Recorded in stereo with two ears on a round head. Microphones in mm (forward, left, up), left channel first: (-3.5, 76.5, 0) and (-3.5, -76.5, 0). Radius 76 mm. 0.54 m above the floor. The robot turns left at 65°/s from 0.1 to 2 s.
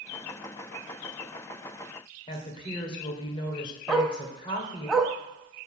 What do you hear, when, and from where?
2.3 s a woman speaking: 30° left (ahead or behind), 2 m
3.9 s a dog barking: 5° right (ahead or behind), 1.1 m